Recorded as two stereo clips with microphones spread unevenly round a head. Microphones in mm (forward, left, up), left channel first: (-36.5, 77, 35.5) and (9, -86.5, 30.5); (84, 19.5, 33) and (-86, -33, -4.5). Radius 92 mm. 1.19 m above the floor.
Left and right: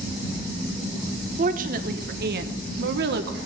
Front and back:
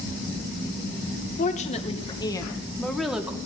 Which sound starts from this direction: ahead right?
A woman speaking, at 1.4 s.